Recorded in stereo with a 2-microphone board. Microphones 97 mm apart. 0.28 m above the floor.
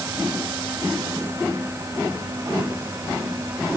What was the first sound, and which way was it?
Only background noise.